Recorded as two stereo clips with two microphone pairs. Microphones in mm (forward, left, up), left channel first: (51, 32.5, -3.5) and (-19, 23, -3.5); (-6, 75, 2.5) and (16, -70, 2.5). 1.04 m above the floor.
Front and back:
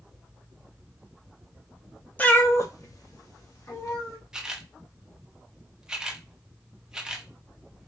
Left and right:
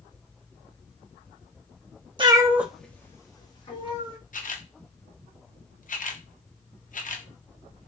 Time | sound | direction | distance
2.2 | a cat meowing | 45° right | 0.5 m
4.3 | a camera shutter | 105° left | 0.5 m